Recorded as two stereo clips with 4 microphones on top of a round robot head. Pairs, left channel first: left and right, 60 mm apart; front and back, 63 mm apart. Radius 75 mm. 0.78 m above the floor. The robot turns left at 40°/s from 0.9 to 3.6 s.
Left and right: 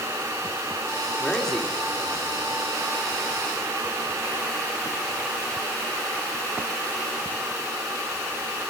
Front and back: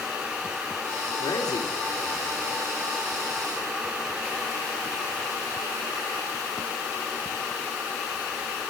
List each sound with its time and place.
1.2 s a man speaking: 20° left, 2 m; by 2.6 s 40° right, 2 m